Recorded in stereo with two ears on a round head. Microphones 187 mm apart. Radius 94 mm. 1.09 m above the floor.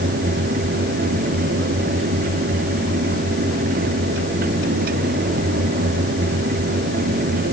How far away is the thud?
No thud in this recording.